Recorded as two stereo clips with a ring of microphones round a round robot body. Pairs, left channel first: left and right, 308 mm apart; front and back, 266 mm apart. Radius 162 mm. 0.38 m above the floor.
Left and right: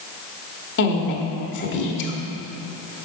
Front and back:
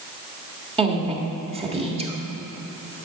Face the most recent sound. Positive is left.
turn(degrees=120)